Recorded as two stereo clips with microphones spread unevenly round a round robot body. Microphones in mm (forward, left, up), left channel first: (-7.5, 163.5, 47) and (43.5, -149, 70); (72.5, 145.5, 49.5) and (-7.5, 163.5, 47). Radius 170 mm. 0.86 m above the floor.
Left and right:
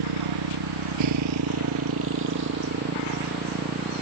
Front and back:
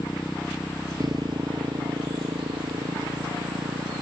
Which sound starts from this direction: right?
A motorcycle, at 0.0 s.